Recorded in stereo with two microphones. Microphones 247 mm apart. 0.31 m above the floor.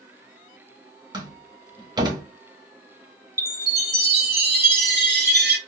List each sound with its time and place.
1.1 s a door slam: 15° right (ahead or behind), 1.3 m
3.4 s a chime: 40° right (ahead or behind), 1.0 m